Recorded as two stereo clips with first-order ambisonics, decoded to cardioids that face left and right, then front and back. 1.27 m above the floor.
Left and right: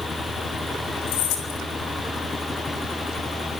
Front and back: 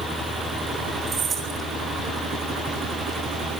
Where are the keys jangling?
110° left, 6 m.